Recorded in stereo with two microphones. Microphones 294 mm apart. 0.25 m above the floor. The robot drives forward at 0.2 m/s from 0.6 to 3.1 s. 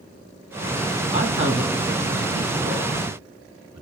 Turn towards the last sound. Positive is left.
turn(degrees=-20)  # may be behind; listen again after turning